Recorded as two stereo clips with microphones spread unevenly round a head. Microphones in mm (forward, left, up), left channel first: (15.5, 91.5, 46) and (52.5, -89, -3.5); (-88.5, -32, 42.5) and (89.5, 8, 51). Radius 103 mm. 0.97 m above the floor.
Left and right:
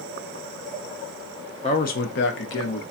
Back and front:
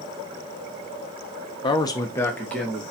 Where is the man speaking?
160° left, 0.5 m; by 2.8 s 110° left, 0.9 m.